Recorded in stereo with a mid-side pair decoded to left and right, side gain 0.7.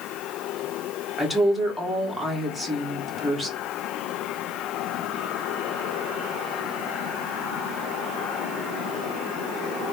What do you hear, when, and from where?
1.2 s a woman speaking: 5° right, 2 m